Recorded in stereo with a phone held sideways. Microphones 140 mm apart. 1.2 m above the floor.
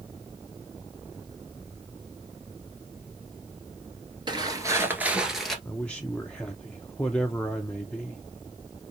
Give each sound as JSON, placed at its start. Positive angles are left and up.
{"t": 4.3, "sound": "footsteps", "side_deg": -35, "distance_m": 1.4}
{"t": 5.7, "sound": "a man speaking", "side_deg": 10, "distance_m": 0.5}